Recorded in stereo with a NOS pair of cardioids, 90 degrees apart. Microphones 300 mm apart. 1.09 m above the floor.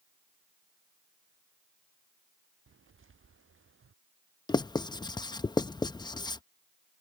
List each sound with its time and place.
2.7 s footsteps: 40° right; by 3.9 s 45° right
4.5 s writing: 15° left